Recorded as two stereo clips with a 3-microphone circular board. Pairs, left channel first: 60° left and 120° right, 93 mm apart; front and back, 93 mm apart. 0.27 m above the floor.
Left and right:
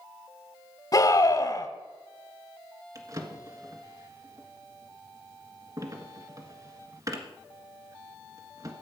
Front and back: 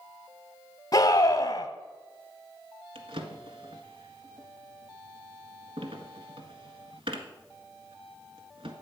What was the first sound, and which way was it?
A scream, 35° left.